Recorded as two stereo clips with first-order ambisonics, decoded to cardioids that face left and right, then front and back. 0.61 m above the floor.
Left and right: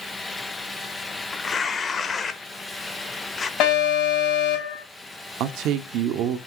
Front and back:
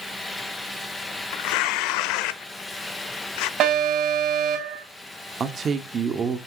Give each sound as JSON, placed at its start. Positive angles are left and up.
{"t": 1.3, "sound": "tearing paper", "azimuth_deg": 20, "distance_m": 1.0}
{"t": 3.6, "sound": "an alarm", "azimuth_deg": 130, "distance_m": 6.5}
{"t": 5.4, "sound": "a man speaking", "azimuth_deg": -115, "distance_m": 1.3}